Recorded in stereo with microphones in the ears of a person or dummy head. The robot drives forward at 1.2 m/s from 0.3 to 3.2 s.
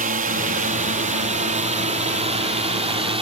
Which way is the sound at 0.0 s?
40° right (ahead or behind).